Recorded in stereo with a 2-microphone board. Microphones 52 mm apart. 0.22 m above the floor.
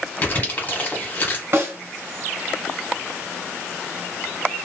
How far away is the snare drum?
About 1.6 m.